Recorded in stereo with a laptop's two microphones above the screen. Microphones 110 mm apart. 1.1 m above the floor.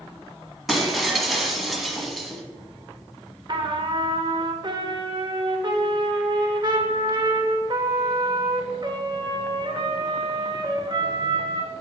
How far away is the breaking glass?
About 1.3 m.